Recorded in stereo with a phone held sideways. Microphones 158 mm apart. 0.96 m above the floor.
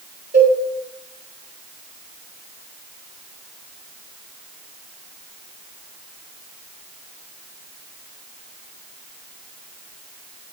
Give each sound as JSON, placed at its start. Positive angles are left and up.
{"t": 0.3, "sound": "a cowbell", "side_deg": -85, "distance_m": 4.0}